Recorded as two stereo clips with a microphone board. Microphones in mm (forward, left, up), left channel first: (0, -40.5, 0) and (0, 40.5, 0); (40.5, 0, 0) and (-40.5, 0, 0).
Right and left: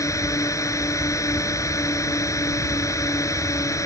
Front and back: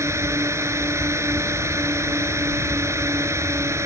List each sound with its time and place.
0.0 s a drone: 130° right